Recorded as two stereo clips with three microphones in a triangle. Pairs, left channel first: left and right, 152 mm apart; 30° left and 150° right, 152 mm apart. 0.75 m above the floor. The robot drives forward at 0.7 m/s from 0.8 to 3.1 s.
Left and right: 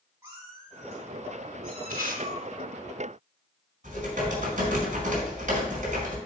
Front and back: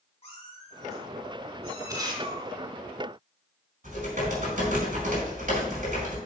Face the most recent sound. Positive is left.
turn(degrees=-120)